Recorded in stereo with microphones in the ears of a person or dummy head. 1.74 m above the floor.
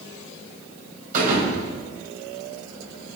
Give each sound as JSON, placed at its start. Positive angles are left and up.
{"t": 1.1, "sound": "a thud", "side_deg": -45, "distance_m": 5.5}